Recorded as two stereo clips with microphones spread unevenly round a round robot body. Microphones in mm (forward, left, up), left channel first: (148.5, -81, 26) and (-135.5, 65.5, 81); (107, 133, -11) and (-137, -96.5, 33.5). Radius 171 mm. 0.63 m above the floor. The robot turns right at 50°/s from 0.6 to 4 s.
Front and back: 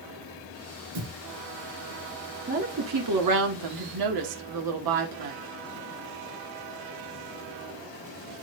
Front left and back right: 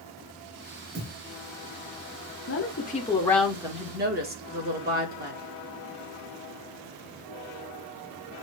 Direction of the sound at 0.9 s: 165° left.